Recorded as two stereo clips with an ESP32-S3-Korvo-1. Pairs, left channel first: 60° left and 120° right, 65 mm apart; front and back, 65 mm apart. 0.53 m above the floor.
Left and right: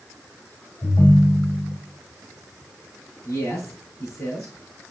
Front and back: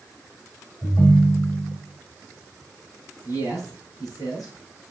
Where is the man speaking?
15° left, 5.5 m.